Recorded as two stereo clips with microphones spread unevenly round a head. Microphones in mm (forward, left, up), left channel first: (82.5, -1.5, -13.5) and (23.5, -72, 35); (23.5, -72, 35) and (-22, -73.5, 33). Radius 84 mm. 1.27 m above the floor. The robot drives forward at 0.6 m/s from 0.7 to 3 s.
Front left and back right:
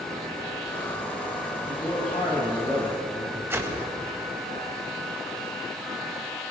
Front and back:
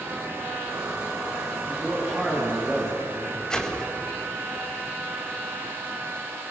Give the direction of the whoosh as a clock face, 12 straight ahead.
2 o'clock.